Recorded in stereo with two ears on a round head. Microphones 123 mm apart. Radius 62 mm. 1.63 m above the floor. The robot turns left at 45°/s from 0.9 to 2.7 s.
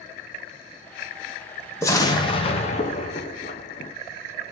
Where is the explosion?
155° left, 0.6 m; by 3.9 s 115° left, 0.6 m.